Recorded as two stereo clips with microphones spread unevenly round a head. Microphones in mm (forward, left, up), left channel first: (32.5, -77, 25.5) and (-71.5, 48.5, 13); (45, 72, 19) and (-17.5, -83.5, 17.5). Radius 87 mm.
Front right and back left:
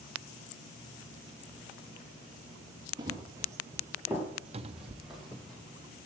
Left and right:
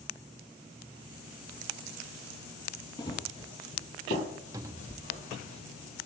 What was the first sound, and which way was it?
Running footsteps, 90° left.